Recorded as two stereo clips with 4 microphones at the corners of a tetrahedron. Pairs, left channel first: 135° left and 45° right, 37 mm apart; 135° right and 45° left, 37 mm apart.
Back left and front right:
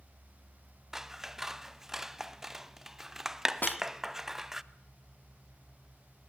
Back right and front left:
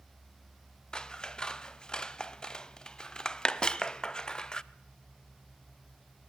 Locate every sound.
0.9 s scissors: 105° right, 0.6 m
3.6 s a snare drum: 155° left, 0.8 m